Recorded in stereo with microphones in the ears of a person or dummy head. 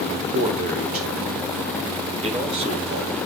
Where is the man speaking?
45° right (ahead or behind), 3.5 m; by 3.2 s 20° right (ahead or behind), 4.5 m.